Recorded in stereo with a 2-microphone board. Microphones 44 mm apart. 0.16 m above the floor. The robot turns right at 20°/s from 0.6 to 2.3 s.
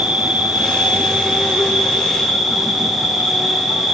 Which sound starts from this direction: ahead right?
An insect, at 0.0 s.